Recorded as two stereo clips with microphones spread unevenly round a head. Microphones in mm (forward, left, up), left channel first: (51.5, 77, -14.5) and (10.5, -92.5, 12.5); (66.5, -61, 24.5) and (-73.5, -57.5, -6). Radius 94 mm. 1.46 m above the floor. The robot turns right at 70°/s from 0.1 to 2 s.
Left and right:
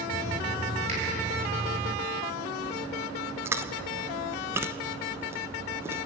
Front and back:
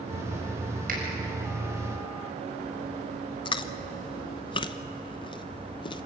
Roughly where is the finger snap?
Behind.